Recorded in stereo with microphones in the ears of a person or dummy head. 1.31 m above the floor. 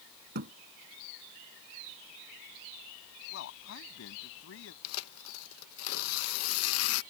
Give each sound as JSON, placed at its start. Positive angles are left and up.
{"t": 0.3, "sound": "a thud", "side_deg": -45}
{"t": 3.3, "sound": "a man speaking", "side_deg": 85}
{"t": 4.8, "sound": "tearing paper", "side_deg": 75}